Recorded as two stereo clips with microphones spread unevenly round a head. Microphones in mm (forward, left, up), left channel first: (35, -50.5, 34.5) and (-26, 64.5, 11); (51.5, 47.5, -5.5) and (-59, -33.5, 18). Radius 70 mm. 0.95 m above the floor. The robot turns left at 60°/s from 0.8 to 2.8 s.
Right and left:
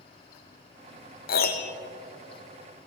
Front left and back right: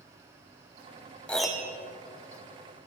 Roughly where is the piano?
Ahead right.